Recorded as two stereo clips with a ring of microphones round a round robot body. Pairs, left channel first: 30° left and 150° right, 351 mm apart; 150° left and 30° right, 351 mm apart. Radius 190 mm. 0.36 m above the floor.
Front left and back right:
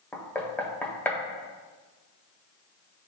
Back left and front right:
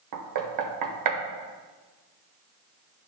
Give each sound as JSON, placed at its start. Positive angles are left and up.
{"t": 0.1, "sound": "knocking", "azimuth_deg": -55, "distance_m": 1.0}